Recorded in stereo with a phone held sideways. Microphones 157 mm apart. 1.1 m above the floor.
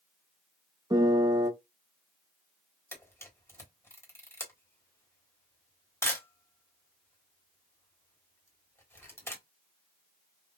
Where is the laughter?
I don't hear laughter.